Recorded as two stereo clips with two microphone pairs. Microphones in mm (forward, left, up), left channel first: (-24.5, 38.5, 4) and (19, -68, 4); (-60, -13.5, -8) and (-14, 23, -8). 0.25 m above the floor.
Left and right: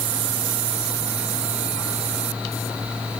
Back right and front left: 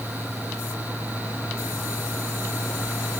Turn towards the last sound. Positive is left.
No sound to turn to.